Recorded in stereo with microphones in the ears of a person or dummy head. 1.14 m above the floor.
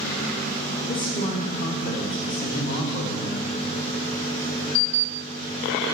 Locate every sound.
0.9 s a man speaking: 40° left (ahead or behind), 1.1 m